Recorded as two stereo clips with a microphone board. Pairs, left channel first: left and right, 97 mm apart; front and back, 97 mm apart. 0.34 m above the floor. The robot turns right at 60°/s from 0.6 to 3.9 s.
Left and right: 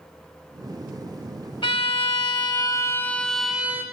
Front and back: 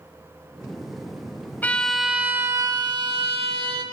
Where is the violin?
70° left, 0.9 m; by 3.8 s 155° right, 0.9 m.